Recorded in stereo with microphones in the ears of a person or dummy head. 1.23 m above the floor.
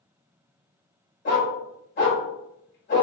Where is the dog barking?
50° left (ahead or behind), 1.2 m.